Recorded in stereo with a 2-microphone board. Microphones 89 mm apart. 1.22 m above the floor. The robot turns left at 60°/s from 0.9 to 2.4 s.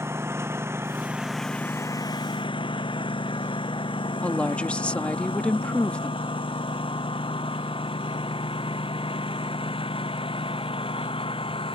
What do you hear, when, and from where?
0.0 s a lawn mower: 30° right (ahead or behind); by 11.8 s 80° left
4.2 s a woman speaking: 15° left (ahead or behind)